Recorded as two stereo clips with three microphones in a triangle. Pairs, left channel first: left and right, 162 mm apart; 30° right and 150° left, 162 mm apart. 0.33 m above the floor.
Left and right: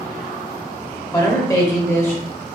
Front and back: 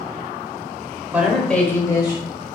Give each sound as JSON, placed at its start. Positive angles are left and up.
{"t": 1.1, "sound": "a woman speaking", "azimuth_deg": 85, "distance_m": 1.0}